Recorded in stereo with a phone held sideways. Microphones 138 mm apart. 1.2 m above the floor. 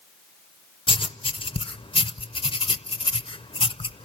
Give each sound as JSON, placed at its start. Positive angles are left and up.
{"t": 0.9, "sound": "writing", "side_deg": 40, "distance_m": 0.5}